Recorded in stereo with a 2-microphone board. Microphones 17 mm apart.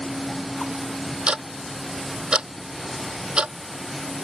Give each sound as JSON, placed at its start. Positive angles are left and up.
{"t": 1.3, "sound": "ticking", "side_deg": -70}